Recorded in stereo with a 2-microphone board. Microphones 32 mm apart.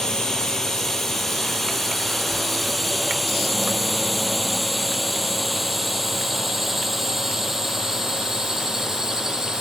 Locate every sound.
0.0 s a drone: 15° left (ahead or behind); by 9.6 s 20° right (ahead or behind)